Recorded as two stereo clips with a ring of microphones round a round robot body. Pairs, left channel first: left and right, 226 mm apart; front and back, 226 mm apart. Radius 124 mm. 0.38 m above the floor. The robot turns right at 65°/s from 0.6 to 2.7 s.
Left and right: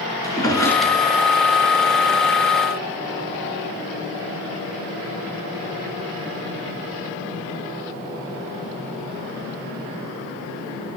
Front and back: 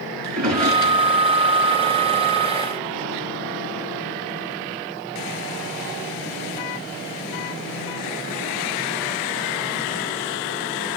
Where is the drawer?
165° left, 3 m; by 1.0 s 170° right, 3 m.